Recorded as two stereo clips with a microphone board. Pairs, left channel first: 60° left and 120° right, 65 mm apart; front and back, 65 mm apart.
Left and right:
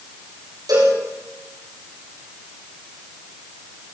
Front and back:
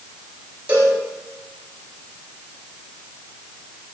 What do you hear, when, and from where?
0.7 s a cowbell: 115° right, 6 m